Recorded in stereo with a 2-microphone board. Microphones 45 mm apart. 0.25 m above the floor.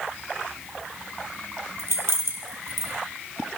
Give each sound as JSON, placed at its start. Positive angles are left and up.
{"t": 1.8, "sound": "keys jangling", "side_deg": -75, "distance_m": 4.0}